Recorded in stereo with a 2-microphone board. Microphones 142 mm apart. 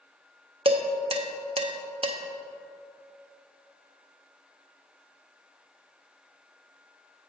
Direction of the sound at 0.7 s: 40° right (ahead or behind).